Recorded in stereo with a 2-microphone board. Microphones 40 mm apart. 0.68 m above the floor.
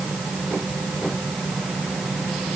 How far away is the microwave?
I don't hear a microwave.